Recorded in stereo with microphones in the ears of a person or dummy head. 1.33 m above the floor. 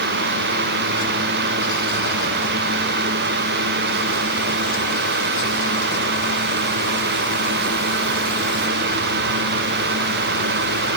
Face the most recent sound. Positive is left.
No sound to turn to.